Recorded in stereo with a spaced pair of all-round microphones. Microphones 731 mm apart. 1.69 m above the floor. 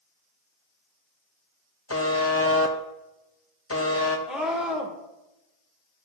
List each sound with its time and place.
1.9 s a buzzer: 20° left (ahead or behind), 0.7 m
4.3 s a scream: centre (ahead or behind), 1.7 m